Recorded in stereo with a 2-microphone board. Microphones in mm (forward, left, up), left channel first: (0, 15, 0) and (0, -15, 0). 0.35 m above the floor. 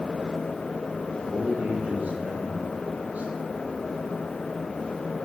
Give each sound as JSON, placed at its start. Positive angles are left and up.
{"t": 1.2, "sound": "a man speaking", "side_deg": -80, "distance_m": 6.0}